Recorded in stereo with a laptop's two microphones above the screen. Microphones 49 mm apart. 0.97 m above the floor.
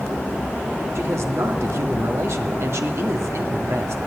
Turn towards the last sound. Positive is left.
turn(degrees=-70)  # may be behind; listen again after turning